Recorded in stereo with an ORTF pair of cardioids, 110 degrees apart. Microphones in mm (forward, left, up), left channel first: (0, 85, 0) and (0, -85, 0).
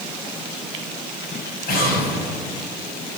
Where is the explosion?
65° left, 6.5 m.